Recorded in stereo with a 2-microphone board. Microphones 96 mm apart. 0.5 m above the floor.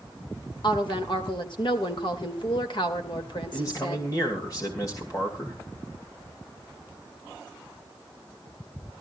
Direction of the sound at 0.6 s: 60° left (ahead or behind).